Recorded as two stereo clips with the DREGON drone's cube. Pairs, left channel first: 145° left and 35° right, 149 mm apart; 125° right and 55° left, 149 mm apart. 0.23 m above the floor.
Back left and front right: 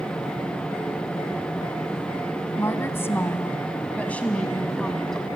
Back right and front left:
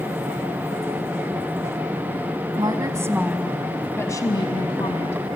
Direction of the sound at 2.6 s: 85° left.